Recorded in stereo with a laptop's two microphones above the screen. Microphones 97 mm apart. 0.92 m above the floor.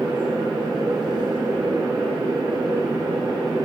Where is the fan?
45° right (ahead or behind), 2 m.